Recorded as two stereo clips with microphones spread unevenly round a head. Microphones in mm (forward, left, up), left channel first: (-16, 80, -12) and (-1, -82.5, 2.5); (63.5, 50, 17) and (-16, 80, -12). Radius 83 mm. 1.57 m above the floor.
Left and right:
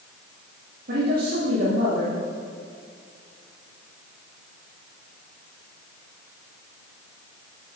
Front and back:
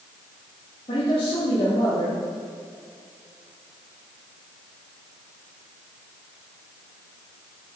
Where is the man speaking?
50° right, 2.5 m.